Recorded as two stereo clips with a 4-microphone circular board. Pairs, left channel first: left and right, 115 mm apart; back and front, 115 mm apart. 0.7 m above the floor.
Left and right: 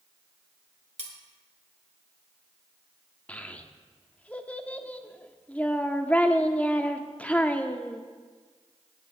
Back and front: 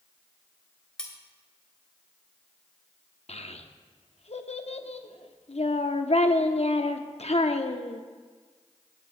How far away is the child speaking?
About 0.8 m.